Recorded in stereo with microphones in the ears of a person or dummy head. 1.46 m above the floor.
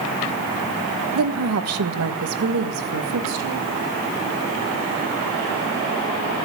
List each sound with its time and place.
1.1 s a woman speaking: 75° right (ahead or behind), 1.3 m; by 3.8 s 90° right, 3.5 m